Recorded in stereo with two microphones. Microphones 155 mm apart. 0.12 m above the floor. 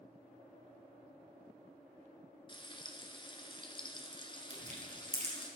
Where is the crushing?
45° right (ahead or behind), 3 m.